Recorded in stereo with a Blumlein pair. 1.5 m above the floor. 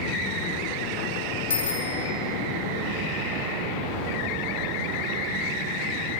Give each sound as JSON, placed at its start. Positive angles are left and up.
{"t": 1.5, "sound": "a bicycle bell", "azimuth_deg": 60, "distance_m": 2.5}